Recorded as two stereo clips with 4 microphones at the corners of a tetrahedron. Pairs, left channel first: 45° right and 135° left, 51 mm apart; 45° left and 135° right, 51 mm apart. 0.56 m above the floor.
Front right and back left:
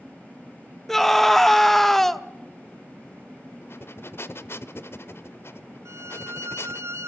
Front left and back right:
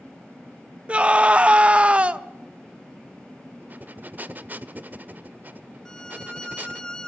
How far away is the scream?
About 0.6 m.